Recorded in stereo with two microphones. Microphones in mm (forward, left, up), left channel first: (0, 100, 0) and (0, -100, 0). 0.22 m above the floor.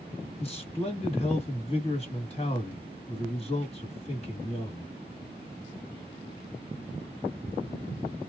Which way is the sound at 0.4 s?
30° left (ahead or behind).